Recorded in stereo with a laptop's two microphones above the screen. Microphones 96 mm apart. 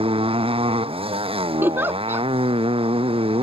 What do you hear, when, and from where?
0.0 s a motorcycle: 70° right (ahead or behind)
1.6 s a giggle: 20° right (ahead or behind)